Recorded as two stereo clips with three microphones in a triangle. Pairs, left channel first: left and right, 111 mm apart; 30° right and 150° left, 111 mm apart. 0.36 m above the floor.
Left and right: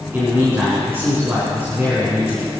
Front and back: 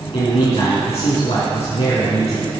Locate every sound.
0.1 s a man speaking: 25° right, 4 m